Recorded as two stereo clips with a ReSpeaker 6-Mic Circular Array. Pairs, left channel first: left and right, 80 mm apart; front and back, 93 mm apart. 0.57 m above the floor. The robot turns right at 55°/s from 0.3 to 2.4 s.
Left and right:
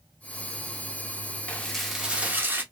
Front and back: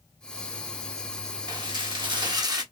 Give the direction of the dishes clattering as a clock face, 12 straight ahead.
7 o'clock.